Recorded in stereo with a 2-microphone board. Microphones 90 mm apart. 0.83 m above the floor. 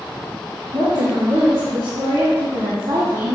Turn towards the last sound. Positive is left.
turn(degrees=-65)  # may be behind; listen again after turning